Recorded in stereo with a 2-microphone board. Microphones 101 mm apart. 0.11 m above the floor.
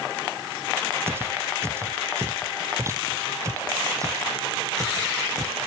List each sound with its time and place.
1.1 s footsteps: 25° right (ahead or behind); by 5.7 s 35° right (ahead or behind)